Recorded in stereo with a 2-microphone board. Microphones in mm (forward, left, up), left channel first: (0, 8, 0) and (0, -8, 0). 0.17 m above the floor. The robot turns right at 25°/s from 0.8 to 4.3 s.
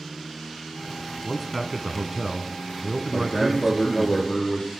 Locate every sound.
1.2 s a man speaking: 15° right (ahead or behind), 1.0 m; by 4.1 s 25° right (ahead or behind), 1.0 m
3.1 s a man speaking: 80° left, 5.5 m; by 4.7 s 60° left (ahead or behind), 5.5 m